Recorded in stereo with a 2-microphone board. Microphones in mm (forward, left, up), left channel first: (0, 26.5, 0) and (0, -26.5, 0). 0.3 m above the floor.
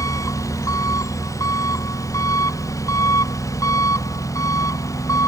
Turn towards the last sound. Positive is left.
turn(degrees=90)